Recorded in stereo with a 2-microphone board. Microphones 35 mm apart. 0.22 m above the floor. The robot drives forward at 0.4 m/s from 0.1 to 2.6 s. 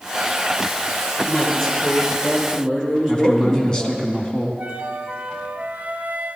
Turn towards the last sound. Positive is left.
turn(degrees=-45)  # may be behind; listen again after turning